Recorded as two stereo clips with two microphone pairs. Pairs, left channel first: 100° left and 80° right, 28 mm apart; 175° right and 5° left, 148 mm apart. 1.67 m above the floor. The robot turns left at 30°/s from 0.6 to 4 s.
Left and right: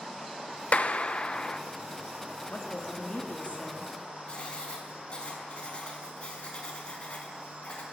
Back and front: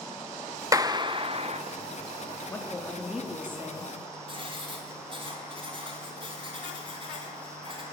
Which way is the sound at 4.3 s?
55° left.